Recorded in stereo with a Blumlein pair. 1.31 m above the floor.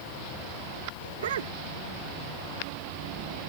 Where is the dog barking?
60° right.